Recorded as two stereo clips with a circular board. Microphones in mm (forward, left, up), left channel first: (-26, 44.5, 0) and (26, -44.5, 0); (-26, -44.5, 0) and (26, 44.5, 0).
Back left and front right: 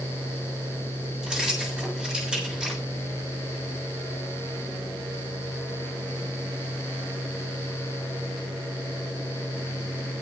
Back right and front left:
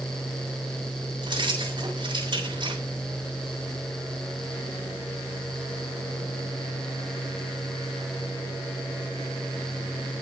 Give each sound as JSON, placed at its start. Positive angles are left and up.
{"t": 1.2, "sound": "keys jangling", "azimuth_deg": 20, "distance_m": 6.5}